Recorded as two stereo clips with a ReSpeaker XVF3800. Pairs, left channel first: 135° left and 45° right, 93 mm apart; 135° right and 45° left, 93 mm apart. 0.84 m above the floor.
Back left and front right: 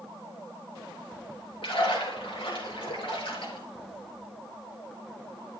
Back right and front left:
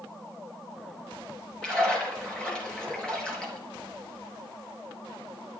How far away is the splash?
About 3.5 m.